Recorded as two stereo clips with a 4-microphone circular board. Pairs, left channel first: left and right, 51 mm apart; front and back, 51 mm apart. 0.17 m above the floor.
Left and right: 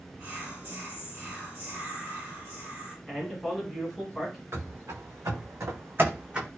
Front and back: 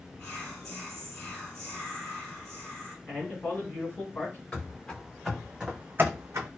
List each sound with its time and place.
0.2 s whispering: 70° right, 1.1 m
3.1 s a man speaking: 5° right, 1.6 m
4.5 s running footsteps: 65° right, 1.1 m; by 6.5 s 165° right, 0.7 m